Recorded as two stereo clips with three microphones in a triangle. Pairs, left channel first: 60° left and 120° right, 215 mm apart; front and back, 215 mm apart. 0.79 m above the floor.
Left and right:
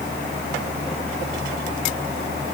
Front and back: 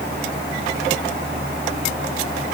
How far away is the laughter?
No laughter in this recording.